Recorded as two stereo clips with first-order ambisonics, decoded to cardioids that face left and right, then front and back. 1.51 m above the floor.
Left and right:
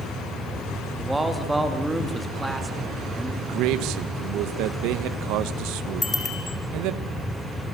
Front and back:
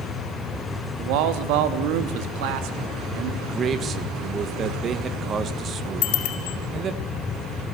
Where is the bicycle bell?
15° left, 5 m.